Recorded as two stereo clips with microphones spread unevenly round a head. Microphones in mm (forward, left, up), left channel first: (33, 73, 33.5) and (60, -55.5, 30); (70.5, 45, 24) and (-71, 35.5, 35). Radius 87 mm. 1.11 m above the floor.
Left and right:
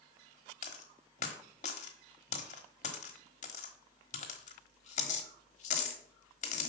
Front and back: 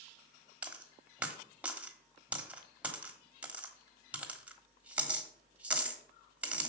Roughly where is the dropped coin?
Left.